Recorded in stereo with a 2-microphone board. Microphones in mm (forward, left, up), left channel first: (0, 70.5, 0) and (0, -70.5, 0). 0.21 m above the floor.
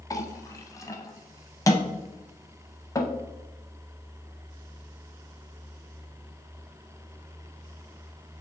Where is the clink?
25° left (ahead or behind), 0.6 m.